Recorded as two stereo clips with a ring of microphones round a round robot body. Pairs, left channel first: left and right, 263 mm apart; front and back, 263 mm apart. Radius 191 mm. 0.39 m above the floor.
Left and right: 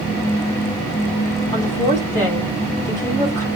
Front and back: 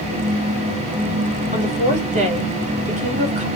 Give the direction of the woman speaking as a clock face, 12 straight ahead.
7 o'clock.